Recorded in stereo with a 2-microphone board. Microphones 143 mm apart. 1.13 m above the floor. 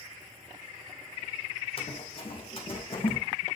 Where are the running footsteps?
40° left (ahead or behind), 2.5 m.